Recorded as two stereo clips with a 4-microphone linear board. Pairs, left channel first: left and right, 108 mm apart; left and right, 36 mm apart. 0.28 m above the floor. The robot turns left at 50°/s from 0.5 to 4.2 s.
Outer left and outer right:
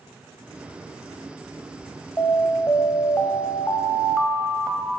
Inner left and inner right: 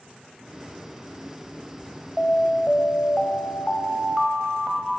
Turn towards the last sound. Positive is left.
turn(degrees=15)